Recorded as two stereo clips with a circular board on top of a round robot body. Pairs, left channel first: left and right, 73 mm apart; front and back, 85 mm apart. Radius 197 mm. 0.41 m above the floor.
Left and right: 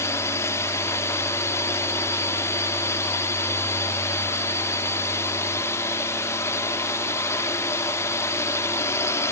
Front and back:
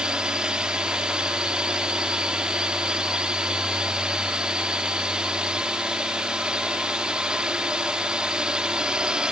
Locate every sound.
0.0 s a drone: 105° left